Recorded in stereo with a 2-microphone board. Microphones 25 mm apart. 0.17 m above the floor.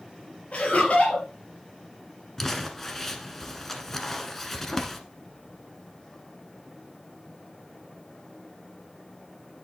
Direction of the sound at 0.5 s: 55° left (ahead or behind).